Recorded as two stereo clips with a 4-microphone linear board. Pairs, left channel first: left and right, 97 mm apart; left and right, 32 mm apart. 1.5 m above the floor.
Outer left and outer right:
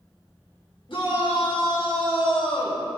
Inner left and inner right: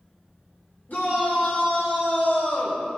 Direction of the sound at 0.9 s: 60° left (ahead or behind).